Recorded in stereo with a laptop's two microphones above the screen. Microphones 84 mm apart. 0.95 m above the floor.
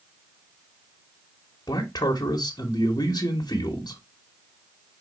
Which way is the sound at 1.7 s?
50° left (ahead or behind).